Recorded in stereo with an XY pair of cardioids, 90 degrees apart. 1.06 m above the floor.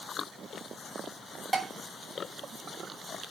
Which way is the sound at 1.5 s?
25° right.